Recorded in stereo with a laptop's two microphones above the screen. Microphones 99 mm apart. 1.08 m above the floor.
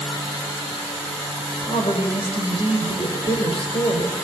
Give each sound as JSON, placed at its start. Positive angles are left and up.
{"t": 1.6, "sound": "a woman speaking", "side_deg": 75, "distance_m": 5.0}